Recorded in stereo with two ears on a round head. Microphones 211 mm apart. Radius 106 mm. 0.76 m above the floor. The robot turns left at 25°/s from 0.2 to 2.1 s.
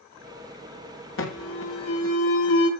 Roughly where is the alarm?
Left.